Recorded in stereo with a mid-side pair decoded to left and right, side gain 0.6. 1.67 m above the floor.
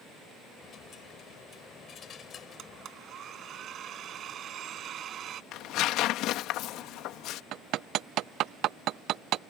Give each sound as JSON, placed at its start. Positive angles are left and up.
{"t": 0.6, "sound": "a dropped coin", "azimuth_deg": 45}
{"t": 2.6, "sound": "a blender", "azimuth_deg": -50}
{"t": 5.5, "sound": "tearing paper", "azimuth_deg": 65}
{"t": 7.5, "sound": "hammering", "azimuth_deg": -60}